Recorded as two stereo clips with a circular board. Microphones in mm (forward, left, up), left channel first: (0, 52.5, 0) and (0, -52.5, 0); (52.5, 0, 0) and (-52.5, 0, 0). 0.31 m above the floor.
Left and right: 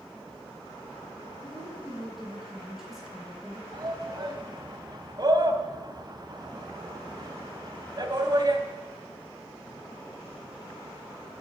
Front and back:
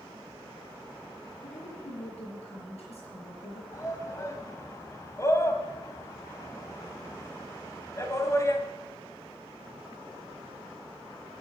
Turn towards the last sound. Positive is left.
turn(degrees=-55)